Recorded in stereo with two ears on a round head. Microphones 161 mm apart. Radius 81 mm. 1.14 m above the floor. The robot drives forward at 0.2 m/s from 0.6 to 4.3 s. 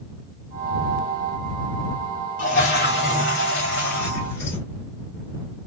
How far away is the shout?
I don't hear a shout.